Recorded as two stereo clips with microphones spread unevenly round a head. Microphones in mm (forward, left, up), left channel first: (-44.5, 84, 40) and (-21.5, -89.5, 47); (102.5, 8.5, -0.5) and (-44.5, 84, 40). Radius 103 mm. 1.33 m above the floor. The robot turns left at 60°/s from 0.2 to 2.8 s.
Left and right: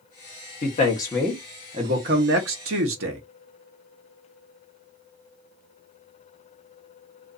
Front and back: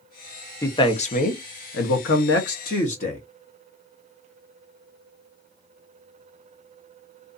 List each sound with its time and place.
0.6 s a man speaking: 50° left, 0.8 m; by 3.2 s 85° right, 0.8 m